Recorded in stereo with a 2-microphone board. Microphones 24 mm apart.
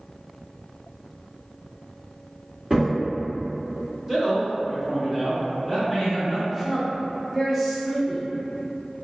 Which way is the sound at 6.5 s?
5° right (ahead or behind).